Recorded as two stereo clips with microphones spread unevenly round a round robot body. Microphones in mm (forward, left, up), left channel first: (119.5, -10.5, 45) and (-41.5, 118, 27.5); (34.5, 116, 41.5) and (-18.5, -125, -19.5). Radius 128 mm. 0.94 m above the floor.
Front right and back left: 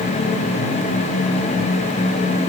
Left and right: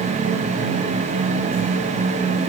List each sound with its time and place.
Only background noise.